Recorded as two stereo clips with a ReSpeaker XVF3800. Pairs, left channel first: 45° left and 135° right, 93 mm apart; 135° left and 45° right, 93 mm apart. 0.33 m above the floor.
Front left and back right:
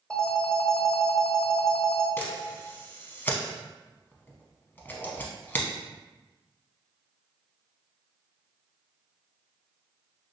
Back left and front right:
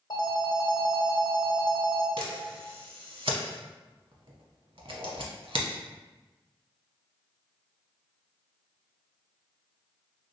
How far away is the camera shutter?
About 0.6 m.